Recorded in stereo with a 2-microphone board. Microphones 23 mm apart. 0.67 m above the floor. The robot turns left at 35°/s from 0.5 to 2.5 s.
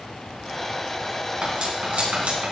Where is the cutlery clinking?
40° right (ahead or behind), 3.5 m; by 2.5 s 80° right, 3.5 m.